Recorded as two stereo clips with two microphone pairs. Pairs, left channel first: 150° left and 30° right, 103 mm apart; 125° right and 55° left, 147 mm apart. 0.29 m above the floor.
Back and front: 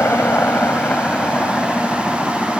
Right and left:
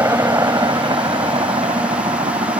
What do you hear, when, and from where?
0.0 s a helicopter: 105° left; by 2.6 s 65° left